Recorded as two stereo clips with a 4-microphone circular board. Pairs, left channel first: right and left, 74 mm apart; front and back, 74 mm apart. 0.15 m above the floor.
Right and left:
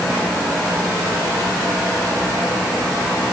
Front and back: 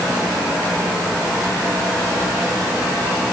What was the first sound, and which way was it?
Only background noise.